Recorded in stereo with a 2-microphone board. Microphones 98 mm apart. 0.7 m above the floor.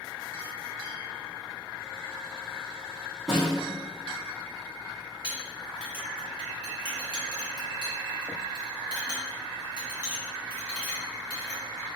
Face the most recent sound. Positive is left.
turn(degrees=-15)  # may be behind; listen again after turning